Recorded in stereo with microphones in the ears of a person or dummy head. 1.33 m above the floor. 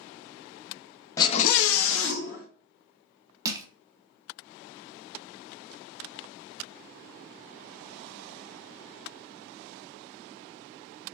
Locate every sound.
1.2 s a scream: 20° left (ahead or behind), 0.7 m; by 2.5 s 55° left (ahead or behind), 1.3 m
3.5 s crushing: 20° right (ahead or behind), 0.6 m